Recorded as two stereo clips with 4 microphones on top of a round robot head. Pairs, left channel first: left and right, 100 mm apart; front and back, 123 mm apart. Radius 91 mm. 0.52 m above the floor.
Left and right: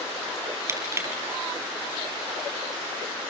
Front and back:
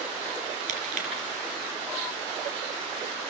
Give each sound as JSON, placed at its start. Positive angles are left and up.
{"t": 0.7, "sound": "crushing", "azimuth_deg": -150, "distance_m": 4.5}